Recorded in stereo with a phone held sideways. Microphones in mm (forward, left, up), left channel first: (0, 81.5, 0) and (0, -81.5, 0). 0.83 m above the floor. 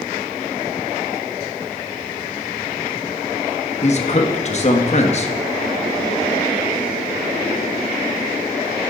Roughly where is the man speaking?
Left.